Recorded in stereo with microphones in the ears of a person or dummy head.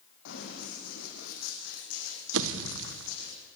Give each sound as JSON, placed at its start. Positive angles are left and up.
{"t": 0.2, "sound": "running footsteps", "side_deg": 65, "distance_m": 5.5}
{"t": 2.3, "sound": "a pop", "side_deg": -70, "distance_m": 1.3}